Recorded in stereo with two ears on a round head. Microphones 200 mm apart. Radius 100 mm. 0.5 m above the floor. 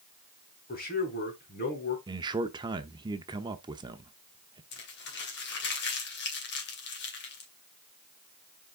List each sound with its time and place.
0.7 s a man speaking: 45° left (ahead or behind), 4 m
2.1 s a man speaking: 20° right (ahead or behind), 0.8 m
4.7 s crumpling: 50° left (ahead or behind), 2.5 m